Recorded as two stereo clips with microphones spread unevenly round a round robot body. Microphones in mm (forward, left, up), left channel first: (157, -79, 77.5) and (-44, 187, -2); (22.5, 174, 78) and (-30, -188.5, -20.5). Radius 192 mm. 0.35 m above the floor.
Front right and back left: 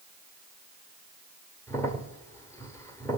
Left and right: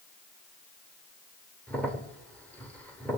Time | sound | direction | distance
1.7 | a crack | 160° right | 0.9 m